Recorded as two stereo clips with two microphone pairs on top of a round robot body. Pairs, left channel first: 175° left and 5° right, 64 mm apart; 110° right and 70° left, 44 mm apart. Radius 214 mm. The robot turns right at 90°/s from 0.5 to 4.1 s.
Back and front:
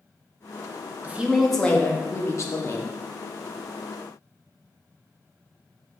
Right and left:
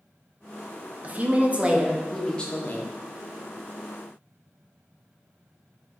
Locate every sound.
1.0 s a woman speaking: 50° left, 0.7 m; by 2.9 s 145° right, 0.7 m